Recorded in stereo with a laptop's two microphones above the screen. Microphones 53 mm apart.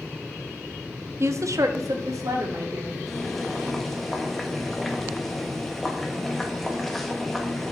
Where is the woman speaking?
50° right (ahead or behind), 0.7 m; by 3.0 s 75° right (ahead or behind), 2.5 m.